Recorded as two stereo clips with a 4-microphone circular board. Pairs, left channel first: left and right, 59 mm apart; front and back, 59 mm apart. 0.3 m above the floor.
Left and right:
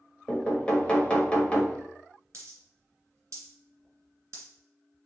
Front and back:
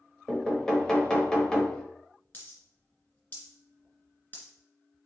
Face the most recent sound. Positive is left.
turn(degrees=-55)